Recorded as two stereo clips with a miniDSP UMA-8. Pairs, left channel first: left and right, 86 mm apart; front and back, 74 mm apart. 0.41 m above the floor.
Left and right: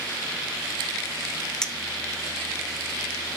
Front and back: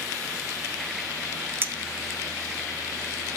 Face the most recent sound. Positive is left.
turn(degrees=160)